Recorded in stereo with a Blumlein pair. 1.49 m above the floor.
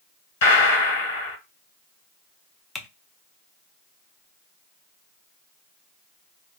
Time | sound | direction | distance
0.4 | a gunshot | 55° left | 1.6 m
2.8 | typing on a keyboard | 10° left | 0.6 m